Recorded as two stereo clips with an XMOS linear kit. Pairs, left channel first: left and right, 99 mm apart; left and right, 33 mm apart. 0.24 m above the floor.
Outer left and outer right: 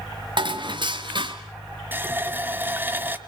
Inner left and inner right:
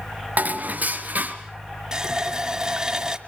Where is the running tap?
20° right (ahead or behind), 1.1 m.